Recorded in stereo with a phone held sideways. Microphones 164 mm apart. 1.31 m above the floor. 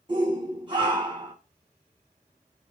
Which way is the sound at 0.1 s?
30° right (ahead or behind).